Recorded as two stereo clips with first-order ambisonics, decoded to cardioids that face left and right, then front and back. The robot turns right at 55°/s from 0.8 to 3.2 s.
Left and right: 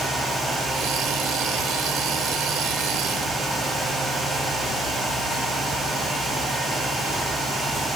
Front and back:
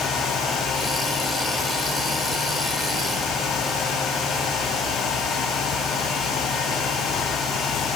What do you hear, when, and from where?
Only background noise.